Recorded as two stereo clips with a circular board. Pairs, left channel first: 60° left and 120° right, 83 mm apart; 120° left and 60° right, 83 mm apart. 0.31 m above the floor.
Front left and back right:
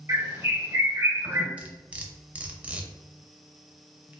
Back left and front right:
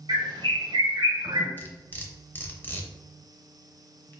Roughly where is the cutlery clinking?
Behind.